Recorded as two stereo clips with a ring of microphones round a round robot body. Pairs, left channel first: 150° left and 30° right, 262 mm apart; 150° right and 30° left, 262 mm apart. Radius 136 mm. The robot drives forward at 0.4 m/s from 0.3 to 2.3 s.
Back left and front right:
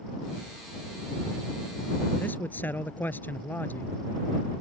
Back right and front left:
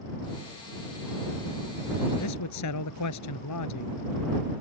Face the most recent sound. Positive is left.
turn(degrees=-125)